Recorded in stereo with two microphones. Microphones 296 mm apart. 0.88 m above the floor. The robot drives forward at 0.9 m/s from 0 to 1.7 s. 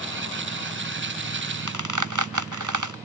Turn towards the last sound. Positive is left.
turn(degrees=-75)  # may be behind; listen again after turning